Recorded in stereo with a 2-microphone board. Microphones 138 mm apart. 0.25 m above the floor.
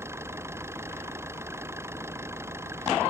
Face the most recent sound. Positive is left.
turn(degrees=-20)  # may be behind; listen again after turning